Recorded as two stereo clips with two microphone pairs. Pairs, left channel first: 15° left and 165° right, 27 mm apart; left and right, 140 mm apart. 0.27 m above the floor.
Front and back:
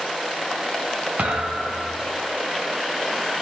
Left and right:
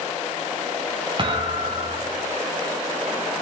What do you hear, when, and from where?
1.2 s a thud: 145° right, 2.5 m